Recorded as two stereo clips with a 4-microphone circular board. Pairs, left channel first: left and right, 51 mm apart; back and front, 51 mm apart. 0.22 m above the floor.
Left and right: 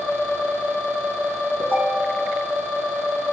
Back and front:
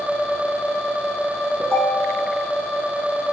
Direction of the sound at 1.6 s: 45° right.